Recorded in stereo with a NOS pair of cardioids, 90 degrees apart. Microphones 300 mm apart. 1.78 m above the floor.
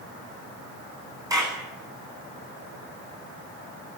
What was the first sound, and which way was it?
A clap, 10° right.